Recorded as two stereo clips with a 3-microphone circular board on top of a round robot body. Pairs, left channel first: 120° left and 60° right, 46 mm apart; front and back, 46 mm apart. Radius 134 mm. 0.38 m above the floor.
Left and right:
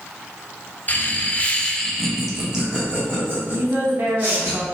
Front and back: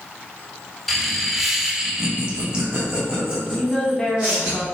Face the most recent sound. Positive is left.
turn(degrees=-65)